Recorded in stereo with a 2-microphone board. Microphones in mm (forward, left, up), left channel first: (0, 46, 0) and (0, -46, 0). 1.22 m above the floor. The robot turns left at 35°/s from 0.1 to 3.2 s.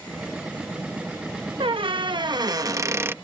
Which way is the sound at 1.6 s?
100° right.